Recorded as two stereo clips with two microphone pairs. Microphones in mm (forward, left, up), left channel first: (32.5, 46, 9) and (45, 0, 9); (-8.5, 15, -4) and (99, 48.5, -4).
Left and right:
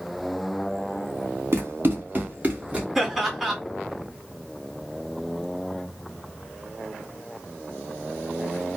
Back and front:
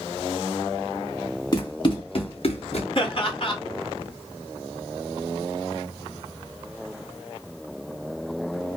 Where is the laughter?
160° right, 2.5 m.